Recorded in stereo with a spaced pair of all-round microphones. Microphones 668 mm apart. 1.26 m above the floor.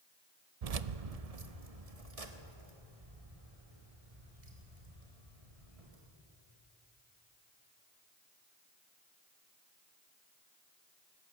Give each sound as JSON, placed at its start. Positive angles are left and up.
{"t": 0.6, "sound": "keys jangling", "side_deg": -65, "distance_m": 0.7}